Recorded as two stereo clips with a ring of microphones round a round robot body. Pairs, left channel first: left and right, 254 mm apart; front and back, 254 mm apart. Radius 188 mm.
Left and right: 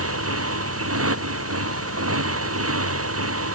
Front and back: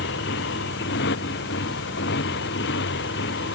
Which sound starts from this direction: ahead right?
A motorcycle, at 0.0 s.